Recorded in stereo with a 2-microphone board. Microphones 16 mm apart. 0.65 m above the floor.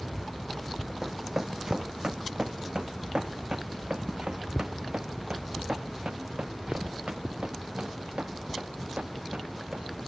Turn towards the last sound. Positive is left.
turn(degrees=-80)